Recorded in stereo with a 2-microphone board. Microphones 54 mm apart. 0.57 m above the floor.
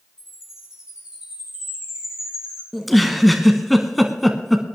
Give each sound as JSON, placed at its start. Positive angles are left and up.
{"t": 0.2, "sound": "a chime", "side_deg": -10, "distance_m": 7.5}
{"t": 2.7, "sound": "a giggle", "side_deg": 0, "distance_m": 1.1}